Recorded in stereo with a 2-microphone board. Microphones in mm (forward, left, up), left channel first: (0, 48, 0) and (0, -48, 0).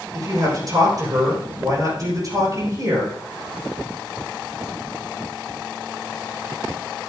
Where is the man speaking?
45° right (ahead or behind), 6.5 m.